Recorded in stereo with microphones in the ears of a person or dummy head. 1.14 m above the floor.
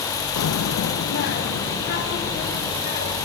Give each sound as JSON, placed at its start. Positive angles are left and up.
{"t": 0.4, "sound": "a child speaking", "side_deg": 80, "distance_m": 0.7}